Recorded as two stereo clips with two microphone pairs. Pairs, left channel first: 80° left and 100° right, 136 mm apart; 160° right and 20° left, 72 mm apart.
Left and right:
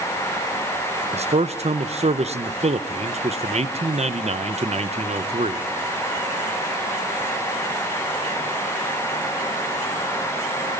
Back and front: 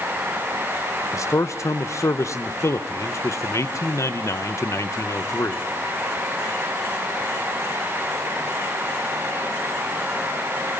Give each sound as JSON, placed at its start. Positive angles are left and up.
{"t": 1.1, "sound": "a man speaking", "azimuth_deg": -120, "distance_m": 1.1}